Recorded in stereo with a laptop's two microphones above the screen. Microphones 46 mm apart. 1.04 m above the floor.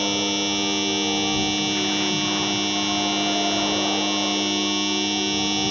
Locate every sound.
0.0 s a machine running: centre (ahead or behind)